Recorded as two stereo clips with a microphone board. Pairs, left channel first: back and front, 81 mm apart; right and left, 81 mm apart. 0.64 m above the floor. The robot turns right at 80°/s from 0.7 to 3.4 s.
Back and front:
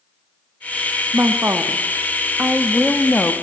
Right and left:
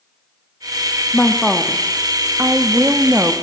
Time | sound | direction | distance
1.1 | a woman speaking | 40° right | 0.6 m